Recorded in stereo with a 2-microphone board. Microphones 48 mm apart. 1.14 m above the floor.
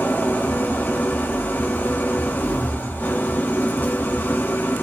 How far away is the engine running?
About 2 m.